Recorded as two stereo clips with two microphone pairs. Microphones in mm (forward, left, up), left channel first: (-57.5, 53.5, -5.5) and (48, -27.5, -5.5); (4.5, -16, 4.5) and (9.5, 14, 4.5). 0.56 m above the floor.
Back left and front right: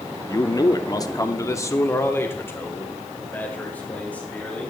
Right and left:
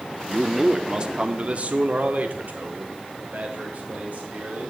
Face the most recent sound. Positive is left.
turn(degrees=65)